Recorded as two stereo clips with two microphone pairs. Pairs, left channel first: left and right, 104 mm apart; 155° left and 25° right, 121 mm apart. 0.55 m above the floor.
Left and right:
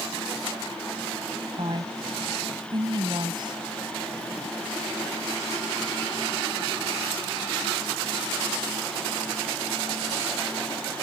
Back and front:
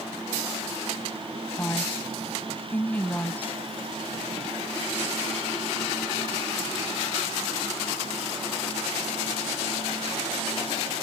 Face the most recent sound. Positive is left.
turn(degrees=-130)